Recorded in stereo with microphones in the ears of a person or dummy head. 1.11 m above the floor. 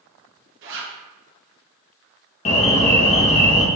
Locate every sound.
0.6 s a zipper: 65° right (ahead or behind), 1.1 m
2.5 s an alarm: 30° left (ahead or behind), 0.5 m